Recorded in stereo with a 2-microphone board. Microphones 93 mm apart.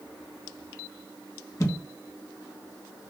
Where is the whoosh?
35° left (ahead or behind), 2 m.